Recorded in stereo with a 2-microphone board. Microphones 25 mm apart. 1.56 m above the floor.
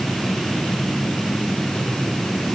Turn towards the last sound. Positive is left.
No sound to turn to.